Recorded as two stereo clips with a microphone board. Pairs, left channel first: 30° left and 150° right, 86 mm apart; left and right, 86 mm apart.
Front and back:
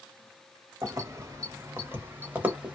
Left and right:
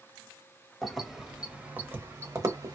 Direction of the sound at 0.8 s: Straight behind.